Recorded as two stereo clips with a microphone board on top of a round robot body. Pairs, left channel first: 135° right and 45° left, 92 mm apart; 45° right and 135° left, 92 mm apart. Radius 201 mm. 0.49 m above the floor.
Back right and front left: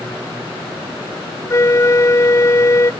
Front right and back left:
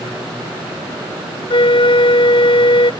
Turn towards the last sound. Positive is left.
turn(degrees=-75)